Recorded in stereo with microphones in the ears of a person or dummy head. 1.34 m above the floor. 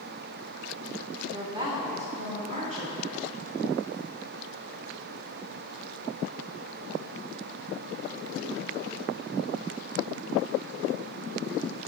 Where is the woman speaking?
20° right (ahead or behind), 0.8 m; by 3.3 s 35° right (ahead or behind), 2 m.